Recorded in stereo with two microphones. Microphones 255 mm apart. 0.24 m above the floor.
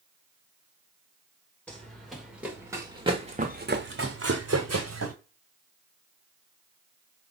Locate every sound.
1.7 s running footsteps: 5° left (ahead or behind), 1.8 m; by 5.2 s 75° right (ahead or behind), 1.1 m